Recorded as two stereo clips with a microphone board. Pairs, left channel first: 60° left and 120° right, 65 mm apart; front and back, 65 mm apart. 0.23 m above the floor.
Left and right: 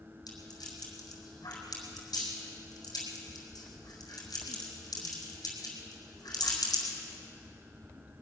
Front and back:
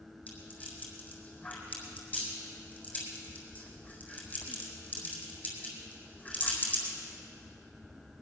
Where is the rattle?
65° left, 4 m.